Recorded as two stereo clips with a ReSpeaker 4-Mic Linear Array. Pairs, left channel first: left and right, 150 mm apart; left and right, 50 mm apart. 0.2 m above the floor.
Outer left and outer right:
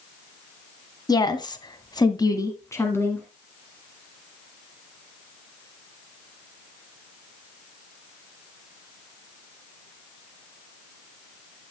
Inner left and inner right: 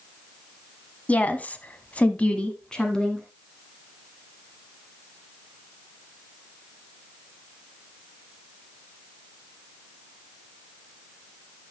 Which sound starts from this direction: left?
A woman speaking, at 1.1 s.